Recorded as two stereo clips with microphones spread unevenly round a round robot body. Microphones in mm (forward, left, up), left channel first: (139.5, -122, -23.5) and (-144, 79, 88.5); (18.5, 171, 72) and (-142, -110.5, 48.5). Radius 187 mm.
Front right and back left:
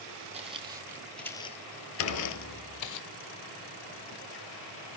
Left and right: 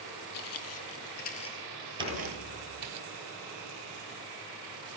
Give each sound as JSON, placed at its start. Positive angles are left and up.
{"t": 0.3, "sound": "footsteps", "azimuth_deg": 90, "distance_m": 1.5}
{"t": 2.0, "sound": "dishes clattering", "azimuth_deg": 20, "distance_m": 2.5}